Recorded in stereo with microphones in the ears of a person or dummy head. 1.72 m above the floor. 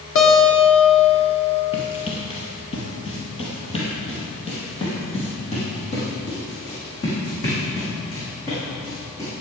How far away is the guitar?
About 2 m.